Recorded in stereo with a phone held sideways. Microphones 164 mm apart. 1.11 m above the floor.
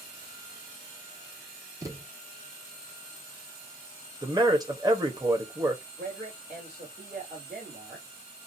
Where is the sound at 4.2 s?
25° right (ahead or behind), 1.2 m.